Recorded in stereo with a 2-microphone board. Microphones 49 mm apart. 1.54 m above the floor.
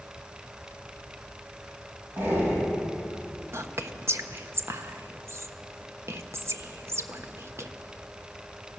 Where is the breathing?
50° right (ahead or behind), 5 m.